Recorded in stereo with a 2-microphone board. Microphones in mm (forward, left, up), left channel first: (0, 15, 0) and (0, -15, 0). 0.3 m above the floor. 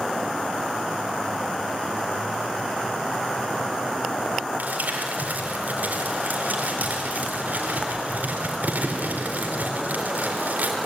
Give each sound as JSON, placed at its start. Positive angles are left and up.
{"t": 4.6, "sound": "crumpling", "side_deg": -70, "distance_m": 4.0}